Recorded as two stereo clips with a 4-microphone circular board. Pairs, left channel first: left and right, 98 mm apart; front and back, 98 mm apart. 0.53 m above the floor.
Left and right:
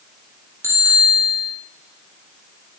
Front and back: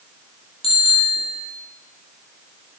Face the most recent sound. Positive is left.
turn(degrees=-25)